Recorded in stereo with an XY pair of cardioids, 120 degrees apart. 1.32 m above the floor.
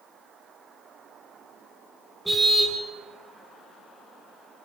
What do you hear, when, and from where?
2.2 s a car horn: 10° right, 4.5 m